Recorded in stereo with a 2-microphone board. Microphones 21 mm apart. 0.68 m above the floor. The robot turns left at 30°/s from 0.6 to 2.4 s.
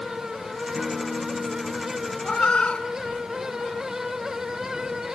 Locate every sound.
0.8 s a guitar: 160° right, 3.5 m; by 2.1 s 160° left, 3.5 m
2.2 s a cat meowing: 60° left (ahead or behind), 1.8 m; by 3.9 s 65° left (ahead or behind), 1.8 m